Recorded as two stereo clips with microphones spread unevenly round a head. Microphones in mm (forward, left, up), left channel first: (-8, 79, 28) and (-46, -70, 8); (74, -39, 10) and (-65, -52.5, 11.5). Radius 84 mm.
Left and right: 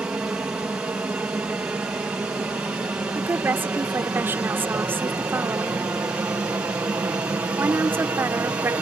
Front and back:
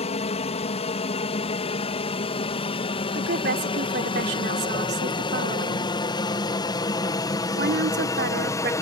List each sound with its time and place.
0.0 s an aircraft: 25° right; by 8.8 s 40° right
3.1 s a woman speaking: 175° left